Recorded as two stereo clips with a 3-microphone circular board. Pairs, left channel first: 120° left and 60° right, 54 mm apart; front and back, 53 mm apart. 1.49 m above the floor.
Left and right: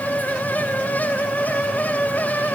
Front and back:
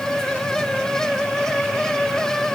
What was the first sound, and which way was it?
Only background noise.